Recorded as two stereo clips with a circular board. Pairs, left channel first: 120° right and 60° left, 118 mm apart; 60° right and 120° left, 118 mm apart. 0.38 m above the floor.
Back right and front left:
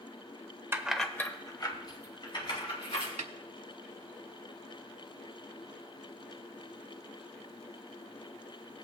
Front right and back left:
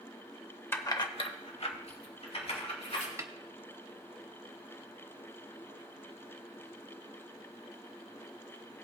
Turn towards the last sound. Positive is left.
turn(degrees=60)